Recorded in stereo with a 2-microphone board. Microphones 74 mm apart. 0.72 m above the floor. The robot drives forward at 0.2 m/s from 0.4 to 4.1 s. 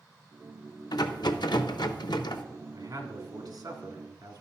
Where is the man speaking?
55° right (ahead or behind), 1.6 m; by 4.4 s 60° right (ahead or behind), 1.6 m.